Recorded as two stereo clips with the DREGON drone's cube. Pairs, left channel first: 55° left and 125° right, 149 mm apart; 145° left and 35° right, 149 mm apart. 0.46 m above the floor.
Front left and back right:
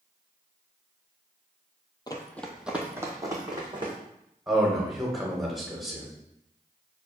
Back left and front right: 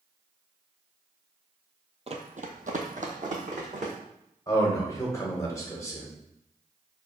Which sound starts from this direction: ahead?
Running footsteps, at 2.1 s.